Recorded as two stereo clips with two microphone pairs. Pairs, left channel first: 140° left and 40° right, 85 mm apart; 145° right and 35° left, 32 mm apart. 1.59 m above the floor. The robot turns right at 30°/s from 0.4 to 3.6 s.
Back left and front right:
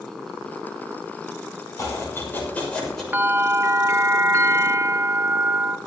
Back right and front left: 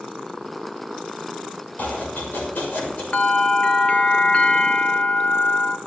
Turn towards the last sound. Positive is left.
turn(degrees=-95)